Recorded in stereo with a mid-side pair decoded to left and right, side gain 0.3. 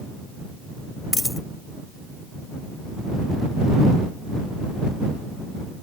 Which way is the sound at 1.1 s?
25° left.